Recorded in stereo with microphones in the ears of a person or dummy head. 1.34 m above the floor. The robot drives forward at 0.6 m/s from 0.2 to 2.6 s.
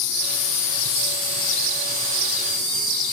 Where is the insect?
65° left (ahead or behind), 1.2 m; by 3.1 s 35° left (ahead or behind), 2.0 m.